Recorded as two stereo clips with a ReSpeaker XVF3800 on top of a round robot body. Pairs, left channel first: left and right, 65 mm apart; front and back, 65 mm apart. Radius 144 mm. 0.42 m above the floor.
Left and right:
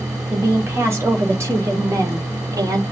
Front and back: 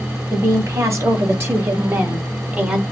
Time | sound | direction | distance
0.3 | a woman speaking | 145° right | 2.5 m